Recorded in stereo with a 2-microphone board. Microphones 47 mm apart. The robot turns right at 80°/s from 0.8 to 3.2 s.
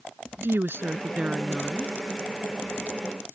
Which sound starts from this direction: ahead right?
A woman speaking, at 0.4 s.